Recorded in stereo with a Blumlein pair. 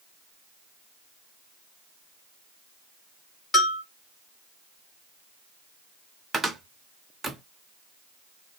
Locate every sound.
3.5 s a bell: 25° left, 2.5 m
6.3 s a cupboard door: 5° right, 0.6 m